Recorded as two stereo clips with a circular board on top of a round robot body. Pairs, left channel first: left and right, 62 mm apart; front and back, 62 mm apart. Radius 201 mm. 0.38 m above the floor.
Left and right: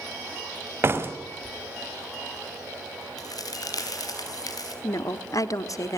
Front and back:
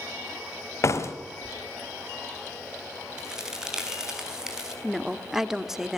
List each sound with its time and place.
0.8 s a door slam: 40° right, 2 m
3.2 s a crack: 100° left, 5 m
4.8 s a woman speaking: 95° left, 1.4 m